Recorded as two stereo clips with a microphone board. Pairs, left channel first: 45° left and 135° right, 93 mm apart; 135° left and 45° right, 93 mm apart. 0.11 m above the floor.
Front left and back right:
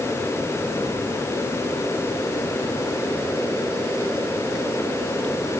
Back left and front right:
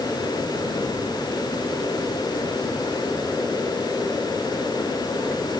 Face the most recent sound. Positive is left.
No sound to turn to.